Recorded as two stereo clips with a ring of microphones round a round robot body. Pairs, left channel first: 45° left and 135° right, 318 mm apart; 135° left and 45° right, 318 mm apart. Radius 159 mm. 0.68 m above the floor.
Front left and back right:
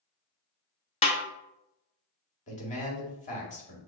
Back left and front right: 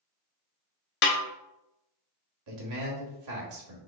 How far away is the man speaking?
About 1.6 m.